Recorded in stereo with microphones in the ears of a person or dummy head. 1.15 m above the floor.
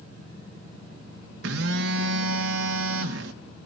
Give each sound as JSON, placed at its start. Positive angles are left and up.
{"t": 1.4, "sound": "a phone buzzing", "side_deg": -70, "distance_m": 1.0}